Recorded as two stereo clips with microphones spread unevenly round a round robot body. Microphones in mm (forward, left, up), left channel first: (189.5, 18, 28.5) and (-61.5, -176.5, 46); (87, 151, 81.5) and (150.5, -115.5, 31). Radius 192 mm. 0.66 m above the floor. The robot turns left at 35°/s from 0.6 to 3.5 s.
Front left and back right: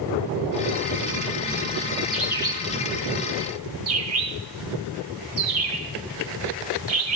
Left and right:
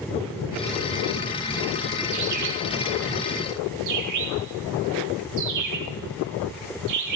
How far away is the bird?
About 4 m.